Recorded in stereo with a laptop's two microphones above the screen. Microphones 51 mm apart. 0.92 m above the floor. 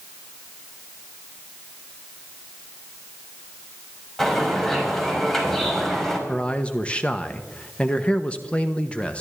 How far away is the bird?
About 4.5 m.